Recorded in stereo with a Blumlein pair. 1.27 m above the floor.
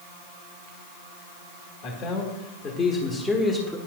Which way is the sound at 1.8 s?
40° left.